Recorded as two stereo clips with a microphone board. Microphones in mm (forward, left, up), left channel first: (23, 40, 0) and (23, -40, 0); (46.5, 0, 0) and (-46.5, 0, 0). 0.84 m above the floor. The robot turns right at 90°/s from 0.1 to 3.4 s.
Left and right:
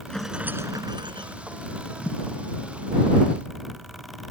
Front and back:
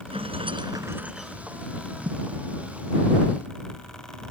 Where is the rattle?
170° left; by 1.4 s 80° right.